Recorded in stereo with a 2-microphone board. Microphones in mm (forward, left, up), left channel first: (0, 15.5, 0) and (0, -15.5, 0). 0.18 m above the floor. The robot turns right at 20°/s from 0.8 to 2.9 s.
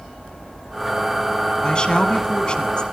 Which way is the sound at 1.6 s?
30° left (ahead or behind).